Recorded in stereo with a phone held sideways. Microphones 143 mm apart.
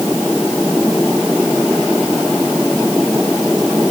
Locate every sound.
Only background noise.